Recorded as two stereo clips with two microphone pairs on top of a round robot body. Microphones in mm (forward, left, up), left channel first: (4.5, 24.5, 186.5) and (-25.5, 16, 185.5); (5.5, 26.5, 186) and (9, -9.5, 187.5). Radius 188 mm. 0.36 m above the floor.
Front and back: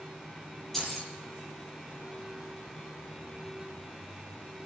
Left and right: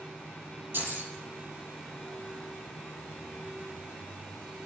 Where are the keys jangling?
65° right, 9.5 m.